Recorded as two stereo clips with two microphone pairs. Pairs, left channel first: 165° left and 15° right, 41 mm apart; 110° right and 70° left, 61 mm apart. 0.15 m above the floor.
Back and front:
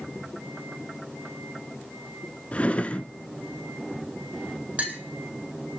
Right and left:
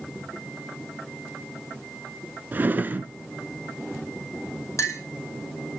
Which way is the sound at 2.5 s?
115° left.